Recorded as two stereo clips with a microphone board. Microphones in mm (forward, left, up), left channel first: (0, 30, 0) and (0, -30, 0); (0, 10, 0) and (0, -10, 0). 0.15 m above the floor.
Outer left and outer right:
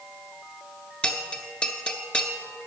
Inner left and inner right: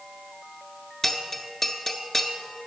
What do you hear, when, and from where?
1.0 s a bell: 20° left (ahead or behind), 0.9 m